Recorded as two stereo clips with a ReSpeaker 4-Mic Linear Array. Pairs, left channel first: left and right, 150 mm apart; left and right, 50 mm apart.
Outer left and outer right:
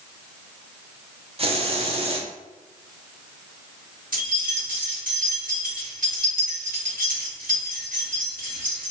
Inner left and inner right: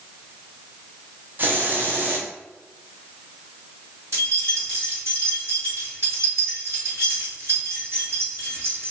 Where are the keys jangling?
70° right (ahead or behind), 1.8 m.